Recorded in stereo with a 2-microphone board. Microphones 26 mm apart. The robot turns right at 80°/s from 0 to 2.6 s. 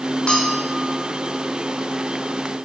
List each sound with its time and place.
0.3 s a bell: 125° left, 2 m; by 0.9 s 175° left, 2 m